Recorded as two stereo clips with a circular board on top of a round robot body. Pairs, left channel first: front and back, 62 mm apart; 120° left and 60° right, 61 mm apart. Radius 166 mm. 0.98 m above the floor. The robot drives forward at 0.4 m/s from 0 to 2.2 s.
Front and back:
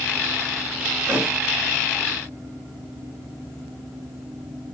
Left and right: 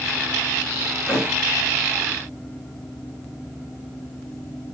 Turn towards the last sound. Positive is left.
turn(degrees=-150)